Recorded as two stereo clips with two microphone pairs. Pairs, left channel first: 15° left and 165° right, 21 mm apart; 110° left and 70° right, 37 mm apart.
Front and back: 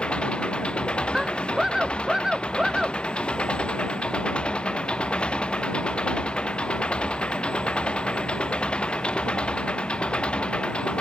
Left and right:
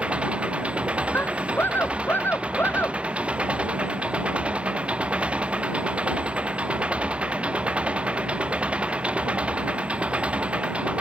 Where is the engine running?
10° right.